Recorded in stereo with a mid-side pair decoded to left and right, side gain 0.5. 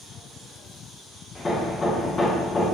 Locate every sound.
1.4 s hammering: 25° left, 1.9 m